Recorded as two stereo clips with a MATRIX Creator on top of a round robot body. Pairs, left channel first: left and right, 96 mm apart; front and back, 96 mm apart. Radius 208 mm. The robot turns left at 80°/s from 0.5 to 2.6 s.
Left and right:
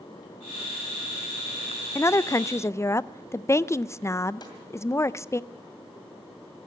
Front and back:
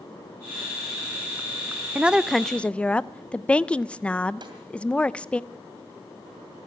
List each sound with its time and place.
1.9 s a woman speaking: 120° left, 0.6 m; by 5.4 s 65° left, 0.6 m
4.4 s a snare drum: 135° left, 2.5 m